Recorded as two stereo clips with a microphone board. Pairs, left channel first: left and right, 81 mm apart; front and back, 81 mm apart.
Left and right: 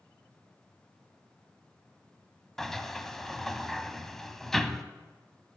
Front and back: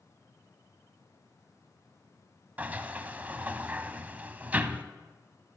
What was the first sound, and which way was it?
A sliding door, 165° left.